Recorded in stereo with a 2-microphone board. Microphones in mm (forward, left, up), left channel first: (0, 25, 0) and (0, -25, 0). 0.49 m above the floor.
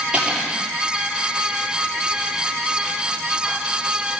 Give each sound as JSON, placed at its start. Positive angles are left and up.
{"t": 0.1, "sound": "cutlery clinking", "side_deg": -20, "distance_m": 7.0}